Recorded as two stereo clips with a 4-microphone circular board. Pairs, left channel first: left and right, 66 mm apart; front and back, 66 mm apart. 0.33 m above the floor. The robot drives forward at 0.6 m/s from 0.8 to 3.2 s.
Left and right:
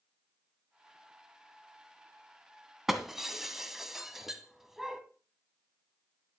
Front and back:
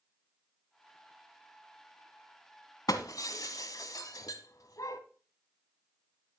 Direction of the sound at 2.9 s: 5° right.